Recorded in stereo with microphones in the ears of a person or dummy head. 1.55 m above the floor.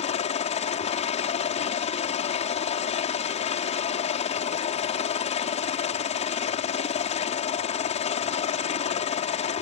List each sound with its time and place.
0.0 s a helicopter: 40° left (ahead or behind)